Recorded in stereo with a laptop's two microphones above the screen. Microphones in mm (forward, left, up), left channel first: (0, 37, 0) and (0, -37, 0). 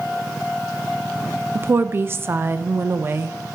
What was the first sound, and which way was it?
A woman speaking, 30° right (ahead or behind).